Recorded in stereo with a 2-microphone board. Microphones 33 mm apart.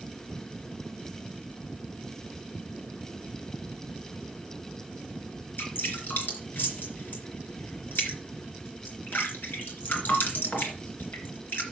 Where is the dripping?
75° left (ahead or behind), 3.5 m.